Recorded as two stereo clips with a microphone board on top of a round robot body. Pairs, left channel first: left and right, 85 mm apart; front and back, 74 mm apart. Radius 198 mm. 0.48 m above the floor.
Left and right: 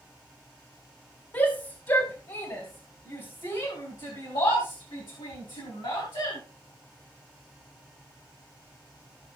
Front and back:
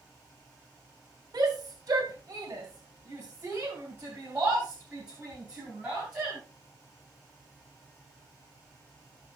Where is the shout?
145° left, 2.5 m; by 6.4 s 100° left, 4.5 m.